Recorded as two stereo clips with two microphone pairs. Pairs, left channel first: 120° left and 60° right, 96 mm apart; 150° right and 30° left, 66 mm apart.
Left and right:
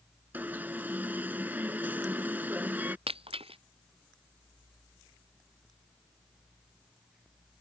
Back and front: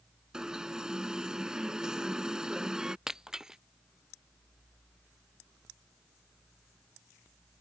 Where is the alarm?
25° right.